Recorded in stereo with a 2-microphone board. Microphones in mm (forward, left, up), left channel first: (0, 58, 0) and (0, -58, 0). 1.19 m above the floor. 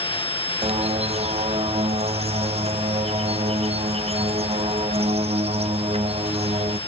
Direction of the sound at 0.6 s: 60° right (ahead or behind).